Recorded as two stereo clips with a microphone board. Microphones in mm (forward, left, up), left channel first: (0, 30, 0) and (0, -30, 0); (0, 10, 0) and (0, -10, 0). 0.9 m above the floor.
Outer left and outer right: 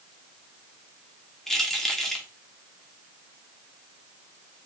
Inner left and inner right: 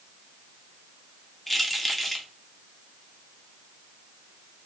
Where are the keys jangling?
5° left (ahead or behind), 1.6 m.